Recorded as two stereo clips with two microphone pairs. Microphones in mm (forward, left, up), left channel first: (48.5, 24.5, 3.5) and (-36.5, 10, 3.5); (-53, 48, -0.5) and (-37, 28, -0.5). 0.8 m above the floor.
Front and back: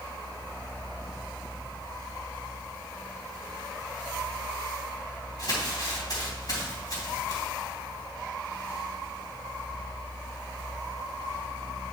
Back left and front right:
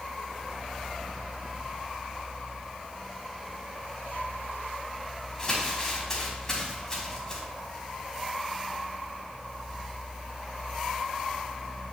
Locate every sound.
5.4 s crumpling: 55° left, 3 m